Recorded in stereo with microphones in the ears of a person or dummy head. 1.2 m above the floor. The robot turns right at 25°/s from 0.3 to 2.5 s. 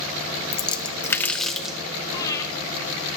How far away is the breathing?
About 1.5 m.